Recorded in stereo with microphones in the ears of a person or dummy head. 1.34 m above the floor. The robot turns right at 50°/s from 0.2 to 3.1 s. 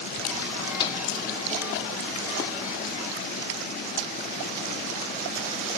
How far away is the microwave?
About 0.6 m.